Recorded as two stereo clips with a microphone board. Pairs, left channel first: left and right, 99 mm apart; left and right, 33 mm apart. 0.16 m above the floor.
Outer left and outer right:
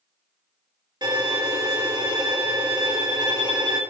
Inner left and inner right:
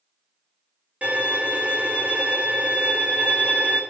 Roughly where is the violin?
Right.